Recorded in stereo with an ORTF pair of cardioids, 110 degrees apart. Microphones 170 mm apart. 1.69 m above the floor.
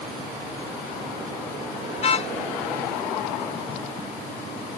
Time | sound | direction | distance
2.0 | a car horn | 40° left | ?